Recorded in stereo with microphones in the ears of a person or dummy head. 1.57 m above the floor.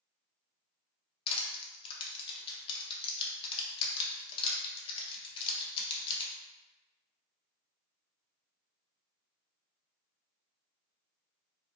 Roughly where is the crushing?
Left.